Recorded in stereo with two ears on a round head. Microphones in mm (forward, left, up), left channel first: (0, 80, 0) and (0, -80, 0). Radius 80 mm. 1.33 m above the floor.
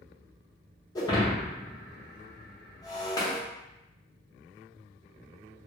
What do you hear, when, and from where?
0.9 s breaking glass: 20° left (ahead or behind), 0.7 m